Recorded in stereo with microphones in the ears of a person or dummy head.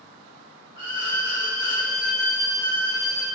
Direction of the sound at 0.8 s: 20° right (ahead or behind).